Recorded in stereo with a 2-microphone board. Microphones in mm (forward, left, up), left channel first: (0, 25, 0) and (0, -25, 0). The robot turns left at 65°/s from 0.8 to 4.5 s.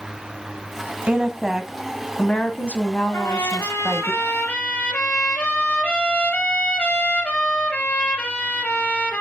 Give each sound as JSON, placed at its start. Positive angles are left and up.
{"t": 1.1, "sound": "a woman speaking", "azimuth_deg": -140, "distance_m": 1.7}
{"t": 3.1, "sound": "a trumpet", "azimuth_deg": 110, "distance_m": 3.5}